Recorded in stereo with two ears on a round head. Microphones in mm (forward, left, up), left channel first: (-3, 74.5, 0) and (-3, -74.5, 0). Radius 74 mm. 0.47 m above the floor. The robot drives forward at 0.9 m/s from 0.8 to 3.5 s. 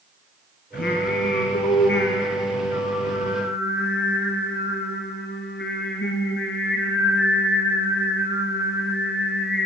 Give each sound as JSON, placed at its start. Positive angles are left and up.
{"t": 0.7, "sound": "singing", "side_deg": 60, "distance_m": 3.5}